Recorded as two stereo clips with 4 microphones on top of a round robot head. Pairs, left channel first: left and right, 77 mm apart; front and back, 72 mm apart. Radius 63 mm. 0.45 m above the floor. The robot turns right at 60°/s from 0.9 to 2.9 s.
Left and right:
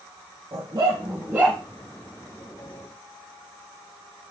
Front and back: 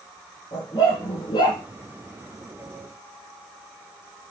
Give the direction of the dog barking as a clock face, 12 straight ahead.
2 o'clock.